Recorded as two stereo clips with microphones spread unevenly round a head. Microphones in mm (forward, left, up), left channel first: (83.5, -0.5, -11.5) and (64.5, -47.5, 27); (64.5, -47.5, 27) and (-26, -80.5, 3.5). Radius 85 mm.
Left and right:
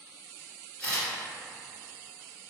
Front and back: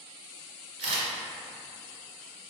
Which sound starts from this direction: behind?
A camera shutter, at 0.8 s.